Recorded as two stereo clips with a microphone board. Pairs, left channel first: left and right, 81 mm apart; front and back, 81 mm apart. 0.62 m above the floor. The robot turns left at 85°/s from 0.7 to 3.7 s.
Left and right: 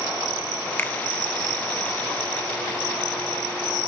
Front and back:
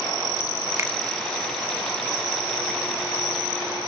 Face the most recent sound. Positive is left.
turn(degrees=-100)